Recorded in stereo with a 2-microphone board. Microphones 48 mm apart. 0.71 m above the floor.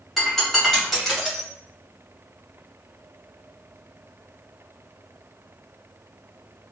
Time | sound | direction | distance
0.2 | breaking glass | 5° left (ahead or behind) | 2.0 m